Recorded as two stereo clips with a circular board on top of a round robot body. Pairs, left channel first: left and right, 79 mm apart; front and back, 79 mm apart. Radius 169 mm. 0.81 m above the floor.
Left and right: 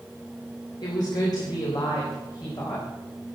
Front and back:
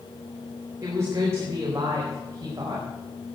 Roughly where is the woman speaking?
Behind left.